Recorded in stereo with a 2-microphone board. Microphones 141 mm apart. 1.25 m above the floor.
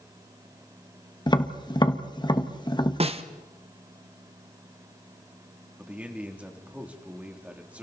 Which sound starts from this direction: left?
Tapping, at 1.3 s.